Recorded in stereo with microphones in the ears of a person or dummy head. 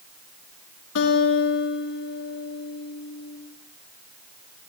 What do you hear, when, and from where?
0.9 s a guitar: 70° left (ahead or behind), 3 m